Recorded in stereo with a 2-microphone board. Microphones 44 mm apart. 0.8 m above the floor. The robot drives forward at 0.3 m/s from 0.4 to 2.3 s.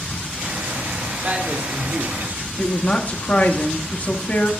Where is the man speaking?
35° right (ahead or behind), 1.8 m; by 2.5 s 45° right (ahead or behind), 1.6 m.